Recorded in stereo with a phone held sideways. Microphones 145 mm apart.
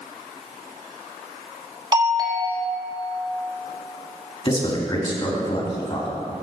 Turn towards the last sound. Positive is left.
turn(degrees=40)  # may be behind; listen again after turning